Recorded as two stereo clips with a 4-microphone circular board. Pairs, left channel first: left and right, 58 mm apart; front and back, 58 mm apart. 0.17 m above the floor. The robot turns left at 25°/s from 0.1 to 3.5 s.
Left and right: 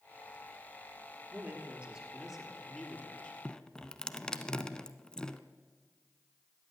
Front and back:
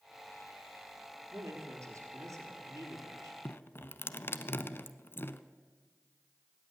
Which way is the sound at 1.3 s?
145° right.